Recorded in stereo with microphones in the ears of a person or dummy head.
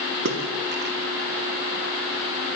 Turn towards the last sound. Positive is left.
turn(degrees=-50)  # may be behind; listen again after turning